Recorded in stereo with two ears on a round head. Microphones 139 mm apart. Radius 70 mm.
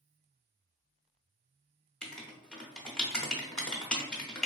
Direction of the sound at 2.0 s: 5° left (ahead or behind).